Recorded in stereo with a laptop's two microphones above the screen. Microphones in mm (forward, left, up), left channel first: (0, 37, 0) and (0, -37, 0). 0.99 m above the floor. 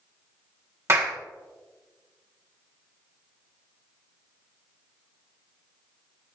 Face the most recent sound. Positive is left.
turn(degrees=-35)  # may be behind; listen again after turning